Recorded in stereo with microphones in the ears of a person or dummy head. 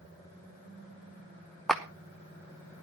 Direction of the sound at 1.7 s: 5° left (ahead or behind).